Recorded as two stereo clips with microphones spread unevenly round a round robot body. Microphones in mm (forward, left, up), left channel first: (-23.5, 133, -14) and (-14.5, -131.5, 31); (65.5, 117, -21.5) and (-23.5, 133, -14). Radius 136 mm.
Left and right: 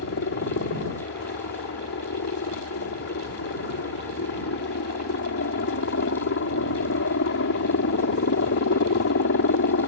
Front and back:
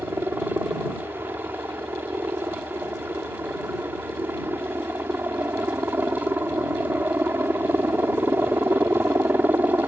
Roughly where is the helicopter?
Left.